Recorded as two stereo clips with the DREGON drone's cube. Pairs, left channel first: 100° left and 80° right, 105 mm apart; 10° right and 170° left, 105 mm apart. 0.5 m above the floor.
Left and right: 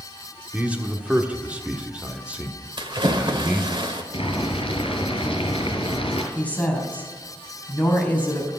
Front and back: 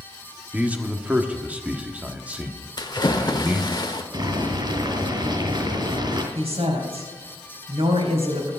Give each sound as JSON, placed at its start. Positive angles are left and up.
{"t": 0.5, "sound": "a man speaking", "azimuth_deg": -135, "distance_m": 1.2}
{"t": 2.8, "sound": "a splash", "azimuth_deg": -50, "distance_m": 1.5}
{"t": 4.1, "sound": "boiling", "azimuth_deg": 125, "distance_m": 2.5}
{"t": 6.3, "sound": "a woman speaking", "azimuth_deg": 175, "distance_m": 3.5}